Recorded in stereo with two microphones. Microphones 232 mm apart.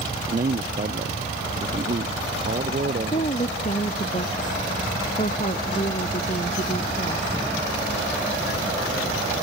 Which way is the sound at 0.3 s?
35° right (ahead or behind).